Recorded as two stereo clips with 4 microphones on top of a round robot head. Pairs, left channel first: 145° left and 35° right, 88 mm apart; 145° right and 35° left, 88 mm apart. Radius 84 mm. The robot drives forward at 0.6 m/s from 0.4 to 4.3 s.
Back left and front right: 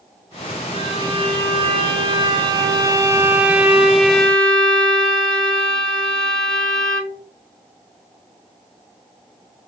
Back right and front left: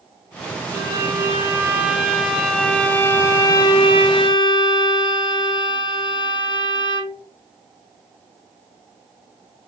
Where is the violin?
25° right, 1.7 m; by 7.2 s 135° right, 1.1 m.